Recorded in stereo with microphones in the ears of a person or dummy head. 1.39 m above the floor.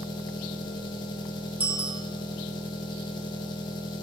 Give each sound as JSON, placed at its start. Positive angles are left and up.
{"t": 0.0, "sound": "an engine running", "side_deg": 20, "distance_m": 1.6}
{"t": 1.6, "sound": "a bicycle bell", "side_deg": -15, "distance_m": 2.0}